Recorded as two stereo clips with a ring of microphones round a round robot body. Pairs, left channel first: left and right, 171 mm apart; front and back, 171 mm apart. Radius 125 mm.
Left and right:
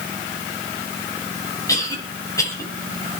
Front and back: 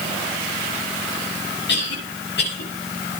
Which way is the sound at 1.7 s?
20° left.